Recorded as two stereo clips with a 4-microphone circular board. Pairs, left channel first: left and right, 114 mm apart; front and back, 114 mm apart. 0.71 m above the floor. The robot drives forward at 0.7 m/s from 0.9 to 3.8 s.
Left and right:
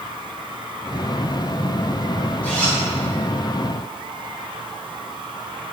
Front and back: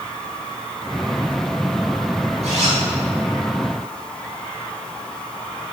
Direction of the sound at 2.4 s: 165° left.